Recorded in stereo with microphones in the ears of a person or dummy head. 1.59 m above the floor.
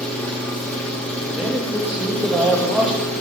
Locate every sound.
0.0 s an engine running: 5° left (ahead or behind), 1.7 m
1.4 s a man speaking: 5° right (ahead or behind), 1.8 m